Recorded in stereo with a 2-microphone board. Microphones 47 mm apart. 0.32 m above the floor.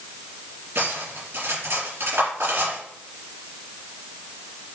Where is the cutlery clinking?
50° right (ahead or behind), 4 m.